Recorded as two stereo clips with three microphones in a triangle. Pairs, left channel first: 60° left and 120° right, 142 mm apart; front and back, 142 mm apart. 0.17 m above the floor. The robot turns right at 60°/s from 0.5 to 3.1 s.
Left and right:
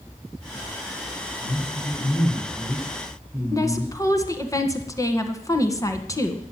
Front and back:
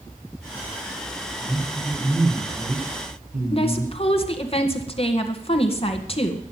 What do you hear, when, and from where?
1.4 s a man speaking: 65° left, 6 m; by 3.9 s 165° left, 6 m
3.5 s a woman speaking: 5° left, 2.0 m